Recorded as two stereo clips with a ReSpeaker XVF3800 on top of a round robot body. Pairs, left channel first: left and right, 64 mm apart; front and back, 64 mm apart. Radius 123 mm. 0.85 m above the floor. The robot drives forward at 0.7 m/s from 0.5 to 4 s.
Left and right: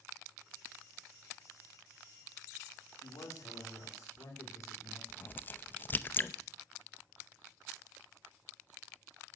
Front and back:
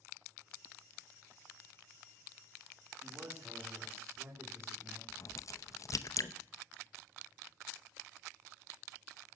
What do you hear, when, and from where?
3.0 s a man speaking: 120° left, 3.5 m; by 5.0 s 130° left, 4 m
5.1 s a crack: 30° left, 0.8 m